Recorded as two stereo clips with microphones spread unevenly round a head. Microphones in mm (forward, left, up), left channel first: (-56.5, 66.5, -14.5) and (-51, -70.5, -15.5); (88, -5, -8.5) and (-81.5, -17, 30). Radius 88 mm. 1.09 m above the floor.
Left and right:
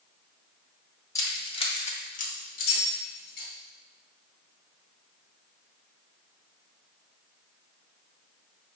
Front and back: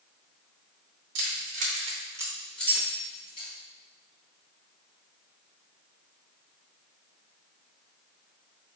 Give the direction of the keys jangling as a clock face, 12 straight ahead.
7 o'clock.